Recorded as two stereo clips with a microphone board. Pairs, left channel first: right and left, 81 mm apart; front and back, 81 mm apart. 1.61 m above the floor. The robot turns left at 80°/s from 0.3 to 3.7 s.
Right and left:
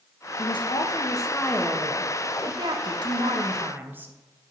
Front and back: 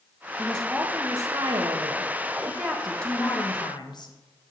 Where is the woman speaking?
70° right, 0.6 m; by 4.1 s 25° left, 0.6 m.